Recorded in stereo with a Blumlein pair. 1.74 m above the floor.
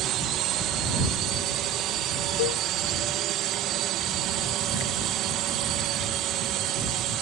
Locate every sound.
0.0 s a drone: 35° right
2.4 s a cowbell: 50° left